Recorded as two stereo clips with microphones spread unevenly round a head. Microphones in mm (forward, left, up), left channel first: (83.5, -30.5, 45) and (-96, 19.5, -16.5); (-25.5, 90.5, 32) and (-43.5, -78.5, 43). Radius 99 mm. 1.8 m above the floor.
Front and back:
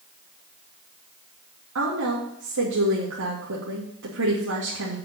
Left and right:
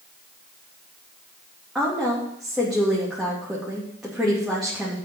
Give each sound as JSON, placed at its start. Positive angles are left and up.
{"t": 1.8, "sound": "a woman speaking", "azimuth_deg": 180, "distance_m": 3.0}